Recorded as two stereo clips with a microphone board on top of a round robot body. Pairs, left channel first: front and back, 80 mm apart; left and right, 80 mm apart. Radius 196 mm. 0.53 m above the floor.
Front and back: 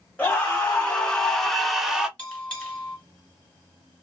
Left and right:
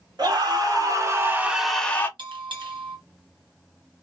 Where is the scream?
75° right, 1.8 m; by 2.1 s 105° left, 1.1 m.